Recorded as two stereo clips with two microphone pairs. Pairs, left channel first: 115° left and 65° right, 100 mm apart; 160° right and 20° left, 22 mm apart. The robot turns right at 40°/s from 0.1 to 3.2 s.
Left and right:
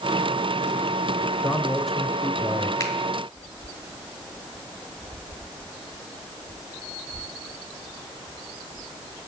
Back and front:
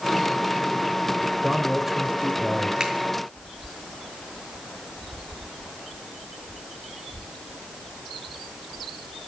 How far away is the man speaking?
About 0.9 m.